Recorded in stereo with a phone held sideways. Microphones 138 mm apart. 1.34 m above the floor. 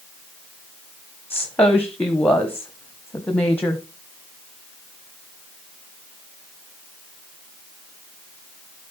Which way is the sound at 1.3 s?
15° left (ahead or behind).